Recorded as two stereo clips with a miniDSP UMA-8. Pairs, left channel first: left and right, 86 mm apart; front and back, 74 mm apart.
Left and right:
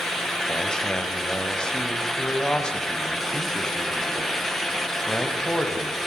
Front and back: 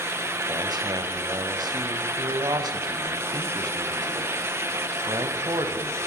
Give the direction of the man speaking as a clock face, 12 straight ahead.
6 o'clock.